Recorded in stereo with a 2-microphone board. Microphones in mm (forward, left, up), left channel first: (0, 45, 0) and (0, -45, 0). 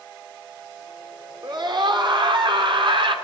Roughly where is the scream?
Right.